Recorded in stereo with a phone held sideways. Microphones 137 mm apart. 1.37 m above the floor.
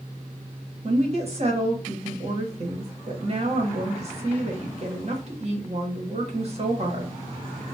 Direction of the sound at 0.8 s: 45° right (ahead or behind).